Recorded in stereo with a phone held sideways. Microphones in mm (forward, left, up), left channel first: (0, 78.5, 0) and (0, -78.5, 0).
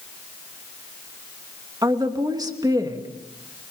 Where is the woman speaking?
25° right (ahead or behind), 2.5 m.